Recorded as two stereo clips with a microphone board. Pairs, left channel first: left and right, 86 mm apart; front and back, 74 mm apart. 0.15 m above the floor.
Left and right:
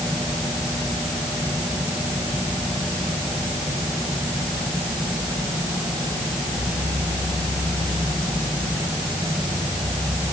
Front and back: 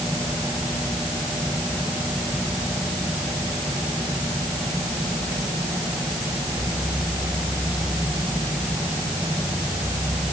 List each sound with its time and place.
Only background noise.